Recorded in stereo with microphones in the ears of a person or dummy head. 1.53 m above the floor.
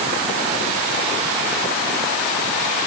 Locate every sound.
Only background noise.